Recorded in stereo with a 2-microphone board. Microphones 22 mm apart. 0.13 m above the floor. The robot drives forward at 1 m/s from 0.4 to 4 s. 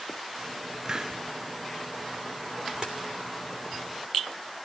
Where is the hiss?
30° right (ahead or behind), 0.5 m; by 1.2 s 25° right (ahead or behind), 0.5 m.